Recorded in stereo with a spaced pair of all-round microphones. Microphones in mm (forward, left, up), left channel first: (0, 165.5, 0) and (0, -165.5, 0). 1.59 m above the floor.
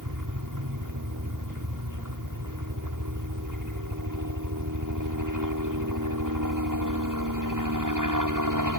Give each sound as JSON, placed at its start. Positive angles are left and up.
{"t": 0.0, "sound": "a helicopter", "side_deg": -65}